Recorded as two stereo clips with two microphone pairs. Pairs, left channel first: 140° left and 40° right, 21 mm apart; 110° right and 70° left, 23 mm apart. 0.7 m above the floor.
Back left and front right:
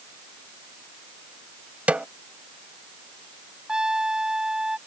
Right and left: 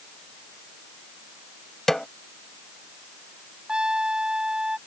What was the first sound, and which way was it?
A snare drum, 30° right.